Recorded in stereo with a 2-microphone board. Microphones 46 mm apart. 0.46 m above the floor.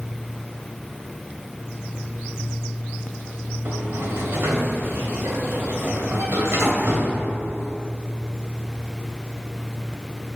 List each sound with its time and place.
3.6 s a sliding door: 70° right (ahead or behind), 1.6 m